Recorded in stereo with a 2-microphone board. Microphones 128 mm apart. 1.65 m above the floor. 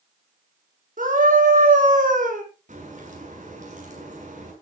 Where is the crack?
65° right (ahead or behind), 7 m.